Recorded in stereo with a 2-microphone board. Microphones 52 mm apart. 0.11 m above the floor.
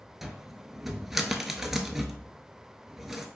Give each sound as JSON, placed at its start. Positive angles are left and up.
{"t": 0.2, "sound": "a cupboard door", "side_deg": -5, "distance_m": 0.5}